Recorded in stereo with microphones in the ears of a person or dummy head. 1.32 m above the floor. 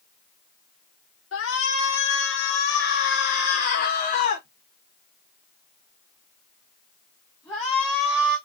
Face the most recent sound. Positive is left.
turn(degrees=0)  # may be behind; listen again after turning